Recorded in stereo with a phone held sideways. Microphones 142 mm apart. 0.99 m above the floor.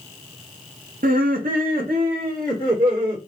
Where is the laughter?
70° right (ahead or behind), 0.9 m; by 3.2 s 80° right, 3.5 m.